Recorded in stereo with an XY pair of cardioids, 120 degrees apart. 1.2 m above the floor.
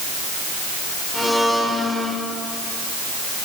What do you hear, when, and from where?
1.1 s a blender: straight ahead, 5 m